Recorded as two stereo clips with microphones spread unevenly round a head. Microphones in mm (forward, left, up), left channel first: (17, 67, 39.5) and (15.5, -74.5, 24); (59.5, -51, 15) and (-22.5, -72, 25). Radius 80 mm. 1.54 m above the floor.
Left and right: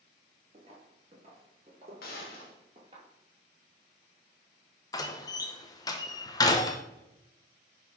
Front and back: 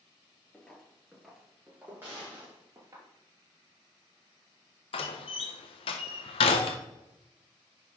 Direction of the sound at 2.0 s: 115° left.